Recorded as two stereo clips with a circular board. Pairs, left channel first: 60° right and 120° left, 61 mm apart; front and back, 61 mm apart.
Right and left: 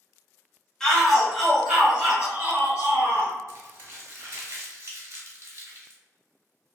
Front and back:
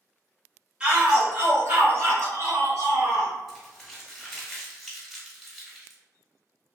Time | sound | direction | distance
0.8 | a shout | 130° right | 1.0 m
3.5 | crumpling | 90° left | 1.0 m